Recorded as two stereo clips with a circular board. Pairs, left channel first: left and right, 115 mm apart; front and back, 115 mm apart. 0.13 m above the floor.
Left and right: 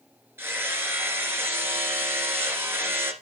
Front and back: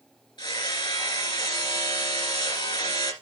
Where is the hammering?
25° right, 1.8 m.